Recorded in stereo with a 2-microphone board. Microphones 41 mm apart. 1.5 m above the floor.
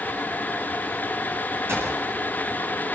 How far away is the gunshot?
About 9 m.